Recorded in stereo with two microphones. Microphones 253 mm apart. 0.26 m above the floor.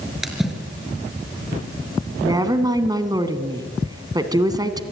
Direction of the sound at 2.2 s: 15° right (ahead or behind).